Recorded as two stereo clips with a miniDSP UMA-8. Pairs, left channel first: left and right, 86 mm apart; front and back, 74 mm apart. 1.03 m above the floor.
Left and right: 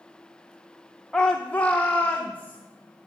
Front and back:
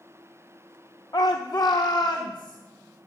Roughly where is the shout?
Ahead.